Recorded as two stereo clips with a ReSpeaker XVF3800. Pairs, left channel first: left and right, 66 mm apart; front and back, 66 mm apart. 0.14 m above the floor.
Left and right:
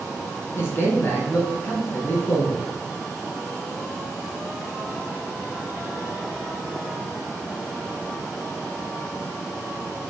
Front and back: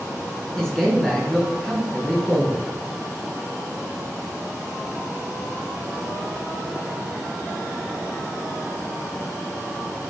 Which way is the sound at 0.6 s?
75° left.